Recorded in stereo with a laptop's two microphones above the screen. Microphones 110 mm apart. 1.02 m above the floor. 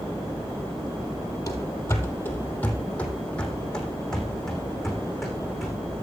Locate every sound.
1.5 s running footsteps: 30° left (ahead or behind), 1.7 m; by 5.8 s centre (ahead or behind), 4.5 m